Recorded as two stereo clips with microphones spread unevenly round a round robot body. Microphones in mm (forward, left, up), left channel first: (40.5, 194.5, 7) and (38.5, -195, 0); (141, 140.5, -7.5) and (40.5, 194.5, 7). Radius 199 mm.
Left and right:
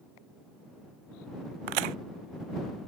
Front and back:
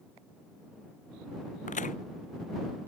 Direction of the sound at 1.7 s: 75° right.